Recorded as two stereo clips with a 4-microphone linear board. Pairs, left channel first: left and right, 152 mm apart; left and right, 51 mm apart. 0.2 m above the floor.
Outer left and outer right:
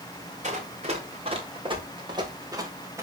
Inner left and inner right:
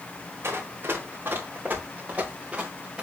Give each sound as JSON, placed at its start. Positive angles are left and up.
{"t": 0.4, "sound": "running footsteps", "side_deg": -50, "distance_m": 4.0}